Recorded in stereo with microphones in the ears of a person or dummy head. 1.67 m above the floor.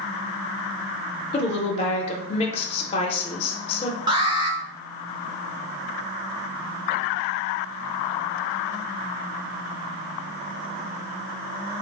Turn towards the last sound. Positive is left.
turn(degrees=-20)  # may be behind; listen again after turning